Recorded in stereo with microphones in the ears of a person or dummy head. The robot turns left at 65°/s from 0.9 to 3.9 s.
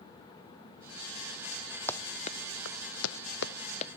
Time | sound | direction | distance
1.9 | running footsteps | 10° left (ahead or behind) | ?